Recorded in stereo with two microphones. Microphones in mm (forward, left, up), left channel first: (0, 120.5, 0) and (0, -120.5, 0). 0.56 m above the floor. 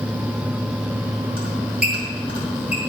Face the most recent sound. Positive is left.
turn(degrees=-40)  # may be behind; listen again after turning